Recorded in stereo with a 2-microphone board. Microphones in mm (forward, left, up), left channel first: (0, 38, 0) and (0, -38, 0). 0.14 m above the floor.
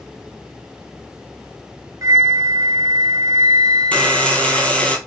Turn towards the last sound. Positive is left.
turn(degrees=20)  # may be behind; listen again after turning